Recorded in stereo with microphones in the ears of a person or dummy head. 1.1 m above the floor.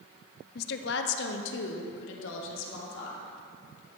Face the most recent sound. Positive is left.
turn(degrees=75)  # may be behind; listen again after turning